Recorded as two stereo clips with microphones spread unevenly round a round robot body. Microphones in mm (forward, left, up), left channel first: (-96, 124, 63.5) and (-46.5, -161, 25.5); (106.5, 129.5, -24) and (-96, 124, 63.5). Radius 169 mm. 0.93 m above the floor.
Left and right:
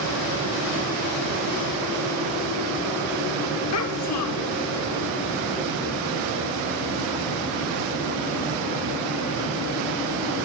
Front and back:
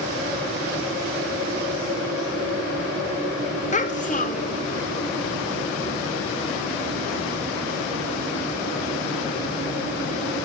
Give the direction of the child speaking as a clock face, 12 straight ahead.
10 o'clock.